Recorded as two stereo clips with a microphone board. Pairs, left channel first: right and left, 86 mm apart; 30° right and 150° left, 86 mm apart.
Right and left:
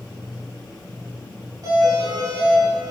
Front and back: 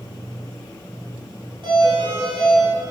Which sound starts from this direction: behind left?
A doorbell, at 1.6 s.